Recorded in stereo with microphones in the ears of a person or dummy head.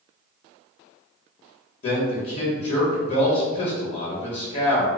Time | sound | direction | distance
1.8 | a man speaking | 45° left (ahead or behind) | 1.3 m